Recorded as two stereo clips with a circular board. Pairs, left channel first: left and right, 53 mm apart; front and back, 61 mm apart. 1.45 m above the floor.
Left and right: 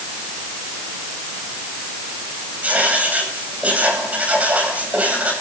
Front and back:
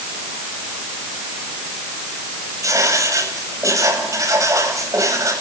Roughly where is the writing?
Behind right.